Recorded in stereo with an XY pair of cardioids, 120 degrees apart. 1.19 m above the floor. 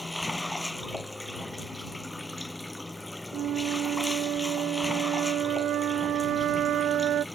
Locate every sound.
0.0 s running water: 5° left
3.3 s a flute: 70° right